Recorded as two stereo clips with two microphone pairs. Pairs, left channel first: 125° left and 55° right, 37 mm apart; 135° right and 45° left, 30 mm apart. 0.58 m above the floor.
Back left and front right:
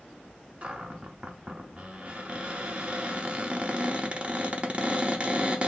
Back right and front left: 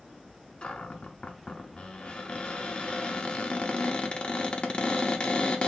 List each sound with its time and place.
0.6 s a cupboard door: 100° right, 0.7 m